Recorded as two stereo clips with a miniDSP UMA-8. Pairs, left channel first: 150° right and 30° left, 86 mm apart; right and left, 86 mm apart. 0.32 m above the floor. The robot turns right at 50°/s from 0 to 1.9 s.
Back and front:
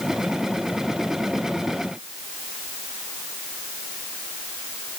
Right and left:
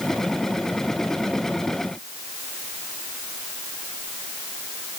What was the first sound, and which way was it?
Only background noise.